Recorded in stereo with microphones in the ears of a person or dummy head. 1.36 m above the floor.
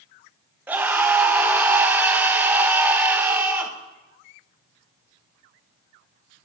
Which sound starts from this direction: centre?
A scream, at 0.7 s.